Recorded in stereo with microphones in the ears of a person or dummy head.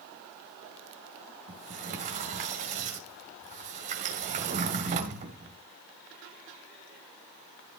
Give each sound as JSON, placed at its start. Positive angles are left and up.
{"t": 1.5, "sound": "a sliding door", "side_deg": -35, "distance_m": 1.6}